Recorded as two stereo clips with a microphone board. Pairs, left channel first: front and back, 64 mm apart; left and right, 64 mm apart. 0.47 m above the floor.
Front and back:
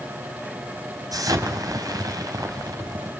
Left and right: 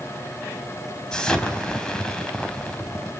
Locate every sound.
1.1 s an explosion: 165° left, 3 m